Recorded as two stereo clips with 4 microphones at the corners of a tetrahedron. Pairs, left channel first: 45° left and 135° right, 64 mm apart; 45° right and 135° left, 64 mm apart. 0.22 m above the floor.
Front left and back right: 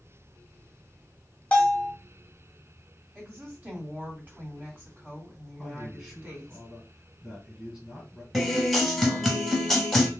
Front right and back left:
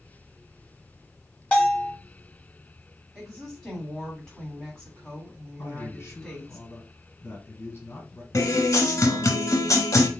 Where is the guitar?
45° right, 0.8 m.